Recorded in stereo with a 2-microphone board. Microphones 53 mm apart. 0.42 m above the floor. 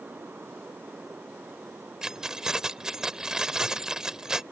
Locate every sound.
2.0 s keys jangling: 15° right (ahead or behind)